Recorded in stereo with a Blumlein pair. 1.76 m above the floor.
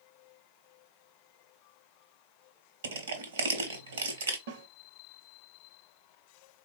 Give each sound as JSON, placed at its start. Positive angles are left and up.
{"t": 2.8, "sound": "crushing", "azimuth_deg": -65, "distance_m": 0.8}
{"t": 4.5, "sound": "a snare drum", "azimuth_deg": -55, "distance_m": 0.7}